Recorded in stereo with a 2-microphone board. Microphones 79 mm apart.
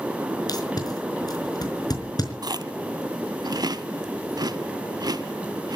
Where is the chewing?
50° right (ahead or behind), 0.7 m.